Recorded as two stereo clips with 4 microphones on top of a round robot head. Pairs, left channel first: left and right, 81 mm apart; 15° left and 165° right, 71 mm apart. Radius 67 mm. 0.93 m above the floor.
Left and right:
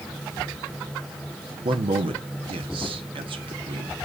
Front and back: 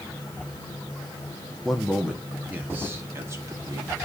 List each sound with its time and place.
1.6 s a man speaking: 75° right, 1.1 m; by 4.0 s 120° right, 1.8 m